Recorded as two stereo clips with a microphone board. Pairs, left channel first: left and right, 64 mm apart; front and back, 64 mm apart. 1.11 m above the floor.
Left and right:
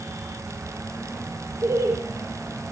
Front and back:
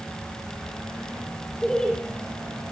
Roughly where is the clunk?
I don't hear a clunk.